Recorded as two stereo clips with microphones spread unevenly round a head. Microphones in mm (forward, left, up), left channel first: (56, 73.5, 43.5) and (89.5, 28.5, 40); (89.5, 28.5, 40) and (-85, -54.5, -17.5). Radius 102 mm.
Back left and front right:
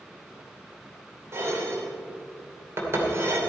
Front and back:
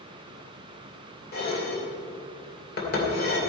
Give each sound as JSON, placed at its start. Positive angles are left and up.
{"t": 1.3, "sound": "dishes clattering", "azimuth_deg": -15, "distance_m": 2.5}